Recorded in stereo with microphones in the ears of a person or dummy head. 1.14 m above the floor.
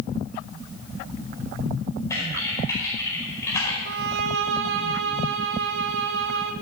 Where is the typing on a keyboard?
10° left (ahead or behind), 5 m.